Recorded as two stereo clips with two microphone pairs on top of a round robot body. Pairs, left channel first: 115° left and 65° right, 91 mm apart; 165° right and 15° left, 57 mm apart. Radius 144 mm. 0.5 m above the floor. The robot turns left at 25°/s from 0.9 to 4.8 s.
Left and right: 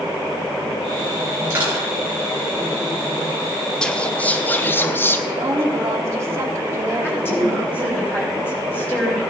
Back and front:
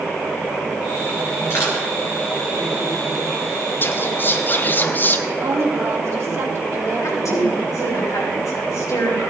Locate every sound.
1.5 s crushing: 125° right, 5.5 m; by 1.8 s 135° right, 5.5 m
3.8 s whispering: 165° right, 0.7 m; by 5.2 s 170° left, 0.7 m
5.3 s a woman speaking: 10° right, 2 m
7.0 s a woman speaking: straight behind, 5 m